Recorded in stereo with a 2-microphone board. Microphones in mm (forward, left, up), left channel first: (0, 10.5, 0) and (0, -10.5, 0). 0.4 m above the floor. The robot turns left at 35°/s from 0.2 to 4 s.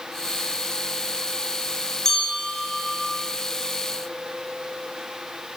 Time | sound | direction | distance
2.0 | a bell | 165° left | 7.5 m